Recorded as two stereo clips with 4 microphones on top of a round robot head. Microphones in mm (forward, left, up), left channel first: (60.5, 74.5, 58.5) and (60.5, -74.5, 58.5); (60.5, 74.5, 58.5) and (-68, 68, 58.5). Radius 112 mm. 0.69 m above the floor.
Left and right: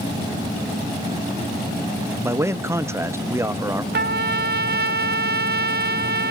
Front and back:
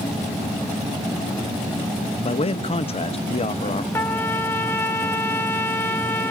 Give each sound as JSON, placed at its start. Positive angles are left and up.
{"t": 2.2, "sound": "a man speaking", "azimuth_deg": -20, "distance_m": 0.8}
{"t": 3.9, "sound": "a trumpet", "azimuth_deg": -75, "distance_m": 0.7}